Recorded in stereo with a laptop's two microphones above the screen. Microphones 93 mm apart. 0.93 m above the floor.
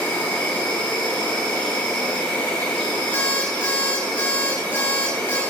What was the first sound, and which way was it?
An insect, 15° left (ahead or behind).